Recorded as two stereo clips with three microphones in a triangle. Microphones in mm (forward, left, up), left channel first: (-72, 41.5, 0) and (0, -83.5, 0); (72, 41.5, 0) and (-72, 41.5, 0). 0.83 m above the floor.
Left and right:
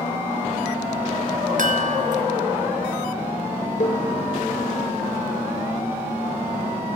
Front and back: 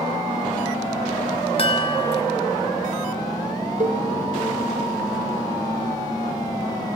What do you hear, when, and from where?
1.6 s a chime: 45° right, 1.6 m
3.8 s a cowbell: 150° left, 2 m